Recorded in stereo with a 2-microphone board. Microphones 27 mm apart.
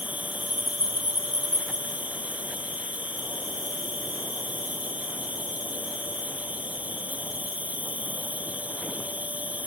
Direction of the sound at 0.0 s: 85° right.